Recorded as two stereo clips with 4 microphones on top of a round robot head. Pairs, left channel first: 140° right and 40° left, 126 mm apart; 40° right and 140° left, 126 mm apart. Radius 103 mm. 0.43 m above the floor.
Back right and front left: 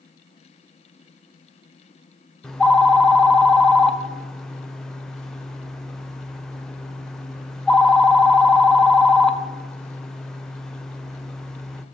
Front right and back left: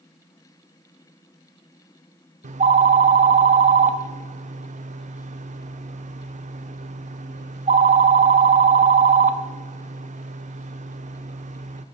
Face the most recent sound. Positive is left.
turn(degrees=130)